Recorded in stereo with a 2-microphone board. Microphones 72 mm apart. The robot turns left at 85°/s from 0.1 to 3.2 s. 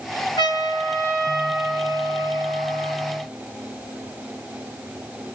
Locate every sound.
0.4 s a trumpet: 85° left, 1.5 m; by 3.2 s 155° right, 1.5 m